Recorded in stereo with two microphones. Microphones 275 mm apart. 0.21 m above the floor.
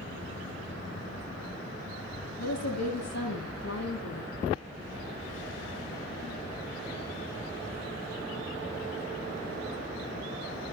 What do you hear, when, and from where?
2.4 s a woman speaking: 65° left (ahead or behind), 9.5 m; by 4.3 s 75° left (ahead or behind), 9 m